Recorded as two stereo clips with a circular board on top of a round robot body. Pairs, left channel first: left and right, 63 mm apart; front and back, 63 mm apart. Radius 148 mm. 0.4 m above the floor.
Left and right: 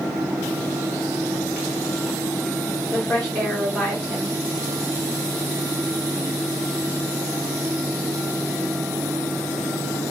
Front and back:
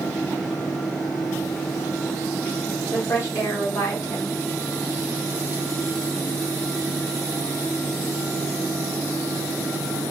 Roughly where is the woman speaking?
Ahead left.